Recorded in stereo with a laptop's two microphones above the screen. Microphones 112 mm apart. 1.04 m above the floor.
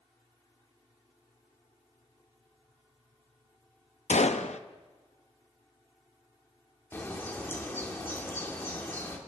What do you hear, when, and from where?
4.1 s a gunshot: 80° left, 0.8 m
6.9 s a bird: 20° left (ahead or behind), 2 m